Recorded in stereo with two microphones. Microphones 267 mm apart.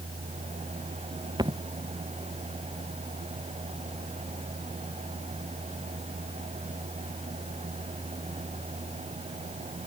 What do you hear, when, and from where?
1.4 s a thud: 15° right (ahead or behind)